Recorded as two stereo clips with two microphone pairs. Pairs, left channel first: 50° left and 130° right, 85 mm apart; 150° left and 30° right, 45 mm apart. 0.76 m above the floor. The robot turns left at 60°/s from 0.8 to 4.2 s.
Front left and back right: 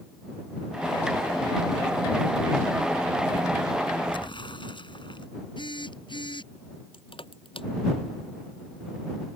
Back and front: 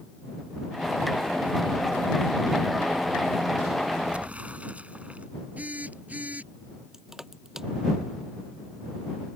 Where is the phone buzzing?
25° left.